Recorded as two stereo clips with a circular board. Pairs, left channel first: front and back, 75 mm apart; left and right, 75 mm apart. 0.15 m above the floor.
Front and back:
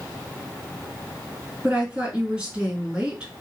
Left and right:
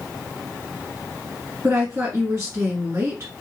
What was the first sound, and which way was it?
A woman speaking, 115° right.